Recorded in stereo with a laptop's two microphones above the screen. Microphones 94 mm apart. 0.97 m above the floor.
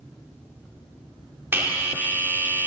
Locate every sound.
1.5 s a bell: 25° right (ahead or behind), 1.8 m